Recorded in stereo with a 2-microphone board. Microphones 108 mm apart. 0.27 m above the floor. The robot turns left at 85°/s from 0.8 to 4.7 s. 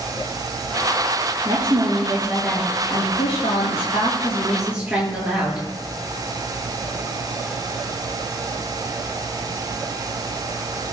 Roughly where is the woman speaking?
Right.